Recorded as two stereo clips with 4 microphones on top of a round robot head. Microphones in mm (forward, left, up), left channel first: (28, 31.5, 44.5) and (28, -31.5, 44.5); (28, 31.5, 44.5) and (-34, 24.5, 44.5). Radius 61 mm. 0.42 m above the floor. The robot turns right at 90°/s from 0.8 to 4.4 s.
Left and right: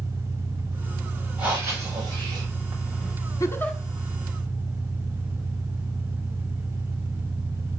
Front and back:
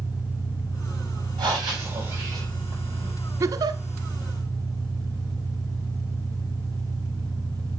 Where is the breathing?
170° right, 6 m; by 3.1 s 10° right, 6 m.